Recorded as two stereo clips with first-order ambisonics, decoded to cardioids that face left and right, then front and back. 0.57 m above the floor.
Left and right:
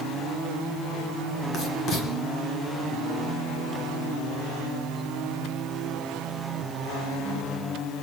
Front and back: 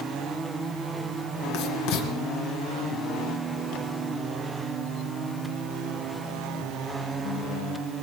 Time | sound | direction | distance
1.5 | writing | 35° left | 2.5 m